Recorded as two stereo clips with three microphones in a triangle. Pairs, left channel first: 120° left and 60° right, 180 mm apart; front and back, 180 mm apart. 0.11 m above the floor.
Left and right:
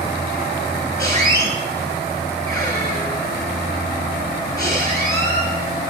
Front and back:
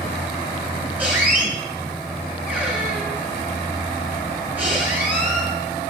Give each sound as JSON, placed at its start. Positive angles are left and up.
{"t": 1.0, "sound": "a squeak", "azimuth_deg": 115, "distance_m": 0.9}